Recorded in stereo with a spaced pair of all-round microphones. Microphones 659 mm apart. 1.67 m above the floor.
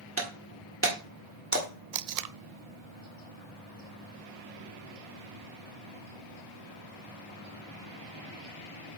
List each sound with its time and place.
0.2 s breaking glass: 20° right (ahead or behind), 1.3 m
1.9 s tape being pulled: 75° right (ahead or behind), 0.5 m